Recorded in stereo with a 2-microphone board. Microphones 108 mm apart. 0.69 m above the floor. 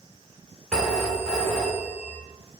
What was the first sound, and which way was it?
A phone ringing, 10° right (ahead or behind).